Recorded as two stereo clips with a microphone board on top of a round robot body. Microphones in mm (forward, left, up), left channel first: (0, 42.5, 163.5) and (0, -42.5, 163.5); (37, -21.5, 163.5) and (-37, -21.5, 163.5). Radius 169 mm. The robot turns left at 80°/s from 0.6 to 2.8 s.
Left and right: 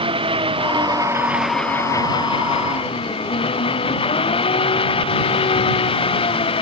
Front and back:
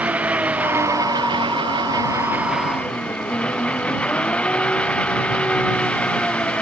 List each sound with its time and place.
0.0 s an engine running: 105° right; by 6.6 s 75° left